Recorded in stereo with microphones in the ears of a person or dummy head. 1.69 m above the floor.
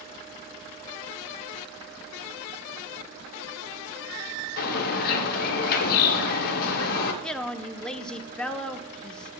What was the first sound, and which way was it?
A bird, 50° left (ahead or behind).